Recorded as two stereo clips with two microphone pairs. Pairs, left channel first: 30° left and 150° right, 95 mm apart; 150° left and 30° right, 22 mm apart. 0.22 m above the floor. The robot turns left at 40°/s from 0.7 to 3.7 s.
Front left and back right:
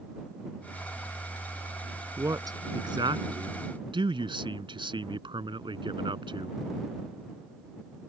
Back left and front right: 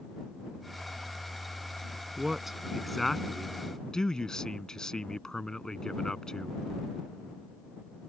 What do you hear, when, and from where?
2.2 s a man speaking: 95° right; by 6.6 s 155° right